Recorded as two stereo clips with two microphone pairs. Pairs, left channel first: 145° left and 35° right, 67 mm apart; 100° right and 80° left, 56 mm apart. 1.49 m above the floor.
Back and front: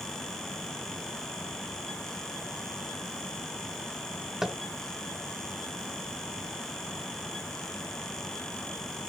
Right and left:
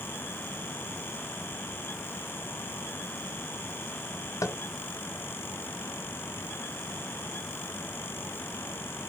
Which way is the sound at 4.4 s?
115° right.